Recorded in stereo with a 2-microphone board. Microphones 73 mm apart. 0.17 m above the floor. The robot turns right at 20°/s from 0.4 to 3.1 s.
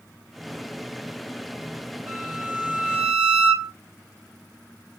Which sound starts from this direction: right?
A violin, at 2.1 s.